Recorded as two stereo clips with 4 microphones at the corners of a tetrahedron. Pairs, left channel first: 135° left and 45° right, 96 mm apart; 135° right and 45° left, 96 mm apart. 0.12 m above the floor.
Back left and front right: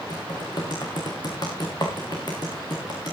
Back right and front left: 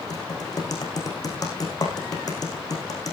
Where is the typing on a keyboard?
175° left, 5.5 m.